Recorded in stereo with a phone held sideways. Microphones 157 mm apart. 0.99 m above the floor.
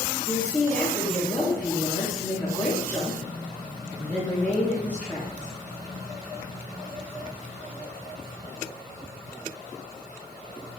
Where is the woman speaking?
10° left (ahead or behind), 2 m.